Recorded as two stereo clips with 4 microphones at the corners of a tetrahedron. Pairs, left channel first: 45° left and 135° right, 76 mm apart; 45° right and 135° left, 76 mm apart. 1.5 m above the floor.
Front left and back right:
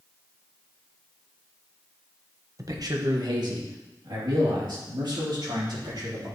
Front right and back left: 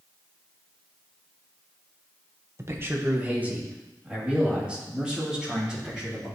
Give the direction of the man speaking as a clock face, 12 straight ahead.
6 o'clock.